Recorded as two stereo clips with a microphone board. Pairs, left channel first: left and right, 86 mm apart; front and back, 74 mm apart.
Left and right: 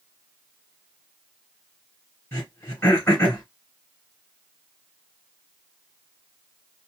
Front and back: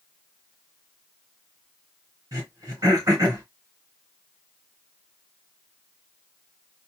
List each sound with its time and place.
2.3 s throat clearing: 145° left, 2.5 m